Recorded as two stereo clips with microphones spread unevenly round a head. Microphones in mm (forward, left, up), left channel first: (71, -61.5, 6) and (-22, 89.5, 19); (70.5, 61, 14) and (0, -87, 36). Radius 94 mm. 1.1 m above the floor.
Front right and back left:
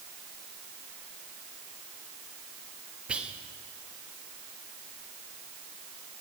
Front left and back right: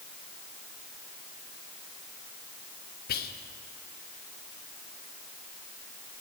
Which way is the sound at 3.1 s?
35° left.